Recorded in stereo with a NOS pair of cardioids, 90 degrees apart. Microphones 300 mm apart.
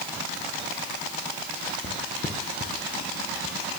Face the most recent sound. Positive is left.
turn(degrees=60)